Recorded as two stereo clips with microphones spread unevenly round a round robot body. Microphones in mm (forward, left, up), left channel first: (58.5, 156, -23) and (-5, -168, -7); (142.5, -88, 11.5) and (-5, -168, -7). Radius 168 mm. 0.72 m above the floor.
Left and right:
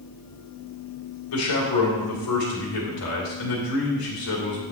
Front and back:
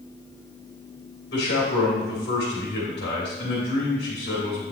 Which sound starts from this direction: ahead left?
A man speaking, at 1.3 s.